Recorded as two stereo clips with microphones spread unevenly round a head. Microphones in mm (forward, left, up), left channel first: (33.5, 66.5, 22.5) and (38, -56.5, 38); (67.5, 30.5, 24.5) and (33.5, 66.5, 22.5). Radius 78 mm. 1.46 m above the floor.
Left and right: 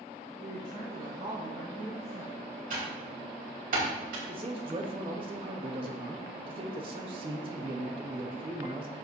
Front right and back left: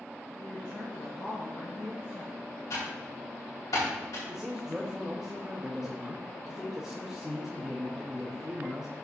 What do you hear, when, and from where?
0.4 s a woman speaking: 105° right, 3.5 m; by 2.4 s 115° right, 5 m
2.7 s typing on a keyboard: 90° right, 3 m
4.3 s a man speaking: 145° right, 1.1 m